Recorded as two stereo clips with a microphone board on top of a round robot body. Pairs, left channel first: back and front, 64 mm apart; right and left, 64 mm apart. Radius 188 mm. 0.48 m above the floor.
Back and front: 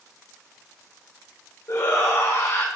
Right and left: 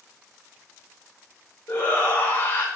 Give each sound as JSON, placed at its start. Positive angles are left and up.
{"t": 1.7, "sound": "a shout", "azimuth_deg": -155, "distance_m": 2.5}